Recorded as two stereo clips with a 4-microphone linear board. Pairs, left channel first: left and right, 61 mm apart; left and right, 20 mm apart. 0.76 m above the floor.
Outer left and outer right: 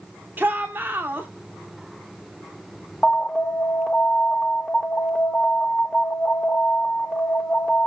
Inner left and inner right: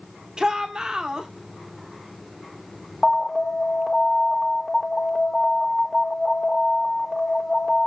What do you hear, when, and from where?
0.4 s a shout: 30° right (ahead or behind), 1.8 m
3.0 s an alarm: 10° left (ahead or behind), 1.6 m